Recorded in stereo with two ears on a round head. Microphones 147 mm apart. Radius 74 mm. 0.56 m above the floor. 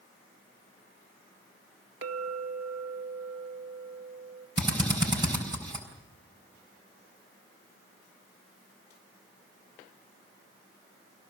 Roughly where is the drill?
Right.